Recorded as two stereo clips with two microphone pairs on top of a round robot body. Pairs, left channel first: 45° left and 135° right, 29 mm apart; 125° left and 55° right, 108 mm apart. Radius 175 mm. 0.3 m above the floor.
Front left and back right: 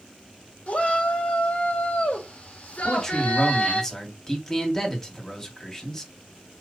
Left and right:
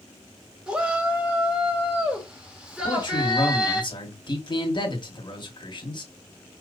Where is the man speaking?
105° left, 1.9 m.